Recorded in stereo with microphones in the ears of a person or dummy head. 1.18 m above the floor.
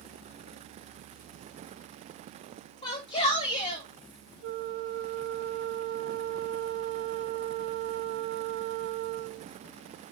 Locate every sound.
2.8 s a shout: 30° left (ahead or behind), 2.5 m
4.4 s a flute: 65° right (ahead or behind), 0.7 m